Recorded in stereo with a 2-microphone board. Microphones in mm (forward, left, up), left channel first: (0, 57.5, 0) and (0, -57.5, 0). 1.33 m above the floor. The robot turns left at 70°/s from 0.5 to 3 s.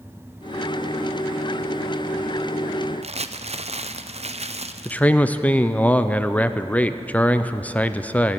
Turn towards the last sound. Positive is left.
turn(degrees=15)  # may be behind; listen again after turning